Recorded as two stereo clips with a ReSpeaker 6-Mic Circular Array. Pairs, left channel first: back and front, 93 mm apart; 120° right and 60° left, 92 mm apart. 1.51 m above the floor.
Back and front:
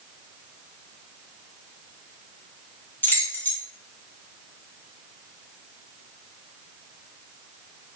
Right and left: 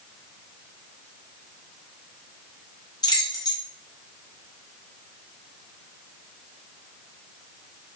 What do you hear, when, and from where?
3.0 s keys jangling: 120° right, 0.6 m